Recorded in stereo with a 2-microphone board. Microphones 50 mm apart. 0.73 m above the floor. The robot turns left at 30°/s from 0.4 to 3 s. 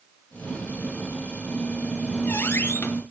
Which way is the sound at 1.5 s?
140° left.